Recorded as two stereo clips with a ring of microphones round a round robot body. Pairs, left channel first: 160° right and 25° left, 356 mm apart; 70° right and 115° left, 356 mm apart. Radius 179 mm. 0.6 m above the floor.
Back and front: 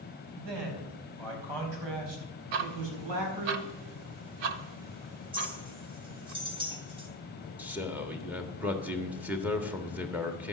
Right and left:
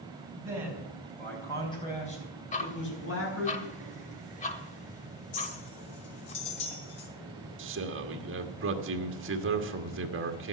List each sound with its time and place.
0.4 s a man speaking: 30° left, 4.5 m; by 3.5 s 15° right, 5 m
2.5 s ticking: 5° left, 1.0 m
5.3 s a clink: 55° right, 3 m
7.6 s a man speaking: 105° left, 1.4 m